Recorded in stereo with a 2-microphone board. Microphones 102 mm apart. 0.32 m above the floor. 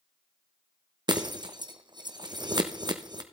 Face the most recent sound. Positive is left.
turn(degrees=-45)  # may be behind; listen again after turning